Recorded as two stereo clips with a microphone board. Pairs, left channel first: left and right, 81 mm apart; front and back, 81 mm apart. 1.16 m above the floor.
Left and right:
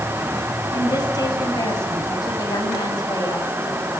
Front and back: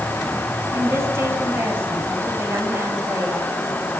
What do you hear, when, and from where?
0.7 s a woman speaking: 125° left, 6 m